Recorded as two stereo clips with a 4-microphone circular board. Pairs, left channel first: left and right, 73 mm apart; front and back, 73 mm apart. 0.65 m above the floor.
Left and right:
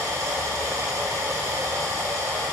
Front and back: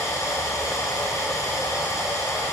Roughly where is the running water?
Ahead right.